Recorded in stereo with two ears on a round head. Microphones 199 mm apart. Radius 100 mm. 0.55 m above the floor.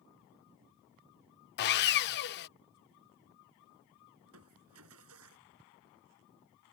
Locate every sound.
1.6 s sawing: 50° left (ahead or behind)
4.2 s crushing: 75° right (ahead or behind)